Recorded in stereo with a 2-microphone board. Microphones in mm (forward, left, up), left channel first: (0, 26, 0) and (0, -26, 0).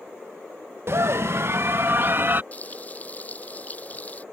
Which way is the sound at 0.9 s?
55° right (ahead or behind).